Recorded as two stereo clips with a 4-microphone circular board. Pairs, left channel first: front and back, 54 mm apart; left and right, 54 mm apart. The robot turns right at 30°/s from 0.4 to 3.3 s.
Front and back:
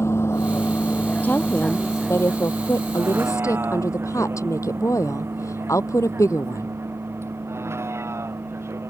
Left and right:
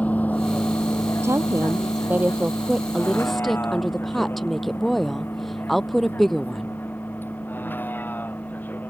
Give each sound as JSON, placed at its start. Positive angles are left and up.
{"t": 0.0, "sound": "a vehicle", "azimuth_deg": 30}
{"t": 1.2, "sound": "a woman speaking", "azimuth_deg": -60}